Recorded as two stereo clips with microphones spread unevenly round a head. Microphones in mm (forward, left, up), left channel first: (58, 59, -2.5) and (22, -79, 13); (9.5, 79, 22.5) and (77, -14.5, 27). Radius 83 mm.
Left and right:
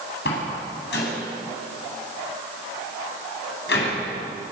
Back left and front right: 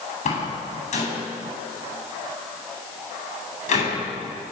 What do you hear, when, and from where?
0.2 s a door slam: 110° left, 9 m